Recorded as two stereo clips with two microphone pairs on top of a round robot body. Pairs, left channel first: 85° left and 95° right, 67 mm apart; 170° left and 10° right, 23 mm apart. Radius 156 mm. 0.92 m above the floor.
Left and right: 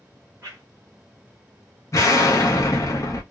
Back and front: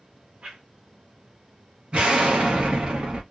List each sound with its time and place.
0.4 s a whoosh: 50° right, 1.0 m
1.9 s an explosion: 35° left, 0.5 m